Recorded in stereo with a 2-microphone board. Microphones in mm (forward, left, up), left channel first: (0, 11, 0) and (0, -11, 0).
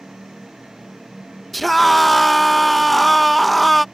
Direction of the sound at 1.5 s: Centre (ahead or behind).